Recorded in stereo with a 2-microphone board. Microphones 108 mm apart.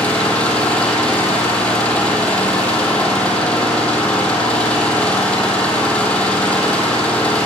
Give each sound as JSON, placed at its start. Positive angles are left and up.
{"t": 0.0, "sound": "an engine running", "side_deg": 10, "distance_m": 3.5}